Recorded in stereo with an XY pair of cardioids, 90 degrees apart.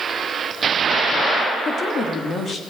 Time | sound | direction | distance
1.6 | a woman speaking | 60° left | 3 m